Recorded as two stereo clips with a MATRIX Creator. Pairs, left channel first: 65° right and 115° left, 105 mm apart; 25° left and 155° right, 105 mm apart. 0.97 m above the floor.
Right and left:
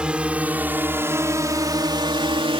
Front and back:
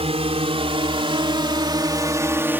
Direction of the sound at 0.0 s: 170° right.